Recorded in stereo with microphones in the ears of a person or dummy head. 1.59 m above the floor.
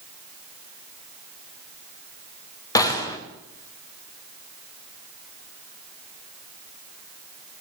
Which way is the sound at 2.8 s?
15° left (ahead or behind).